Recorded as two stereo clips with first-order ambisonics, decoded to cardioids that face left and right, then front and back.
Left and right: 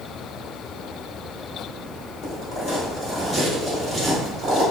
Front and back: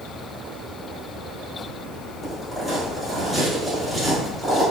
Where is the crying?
No crying in this recording.